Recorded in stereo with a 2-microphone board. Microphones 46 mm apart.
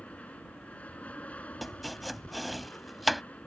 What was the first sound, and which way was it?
An aircraft, 30° left (ahead or behind).